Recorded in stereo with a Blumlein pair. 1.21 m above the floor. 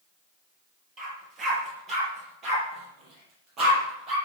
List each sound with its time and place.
1.0 s a dog barking: 25° right, 6 m; by 4.2 s 35° right, 9.5 m